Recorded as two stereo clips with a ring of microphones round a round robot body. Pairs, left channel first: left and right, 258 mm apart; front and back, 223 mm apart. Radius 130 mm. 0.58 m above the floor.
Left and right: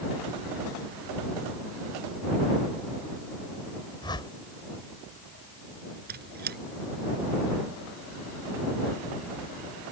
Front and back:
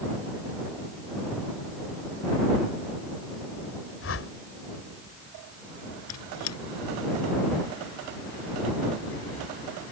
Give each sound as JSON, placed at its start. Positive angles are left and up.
{"t": 4.0, "sound": "a whoosh", "azimuth_deg": 15}
{"t": 6.1, "sound": "a squeak", "azimuth_deg": -35}